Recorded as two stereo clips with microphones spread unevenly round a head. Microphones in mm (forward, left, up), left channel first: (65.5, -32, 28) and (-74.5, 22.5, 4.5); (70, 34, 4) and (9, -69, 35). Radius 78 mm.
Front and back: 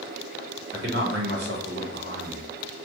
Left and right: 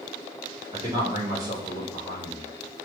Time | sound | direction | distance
0.7 | a man speaking | straight behind | 1.5 m